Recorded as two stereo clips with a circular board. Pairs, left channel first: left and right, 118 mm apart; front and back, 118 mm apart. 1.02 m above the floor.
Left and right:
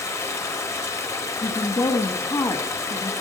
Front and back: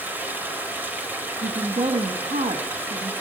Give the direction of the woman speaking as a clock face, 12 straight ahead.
7 o'clock.